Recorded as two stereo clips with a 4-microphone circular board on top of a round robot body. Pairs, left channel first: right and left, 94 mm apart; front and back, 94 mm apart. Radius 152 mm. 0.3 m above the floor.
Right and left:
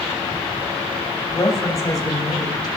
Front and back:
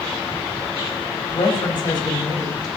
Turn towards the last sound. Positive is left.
turn(degrees=-45)